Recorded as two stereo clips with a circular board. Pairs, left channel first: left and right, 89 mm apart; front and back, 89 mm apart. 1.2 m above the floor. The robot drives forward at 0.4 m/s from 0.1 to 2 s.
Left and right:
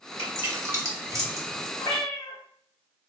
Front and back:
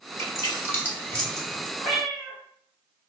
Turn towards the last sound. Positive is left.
turn(degrees=90)